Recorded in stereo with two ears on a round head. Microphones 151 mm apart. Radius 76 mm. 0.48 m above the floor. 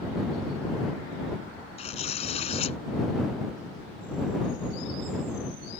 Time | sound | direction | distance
1.8 | tearing paper | 40° left (ahead or behind) | ?